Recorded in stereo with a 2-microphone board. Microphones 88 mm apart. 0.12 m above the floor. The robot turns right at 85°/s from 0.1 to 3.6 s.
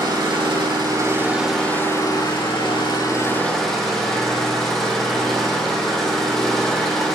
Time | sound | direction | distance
0.0 | an engine running | 120° right | 4.5 m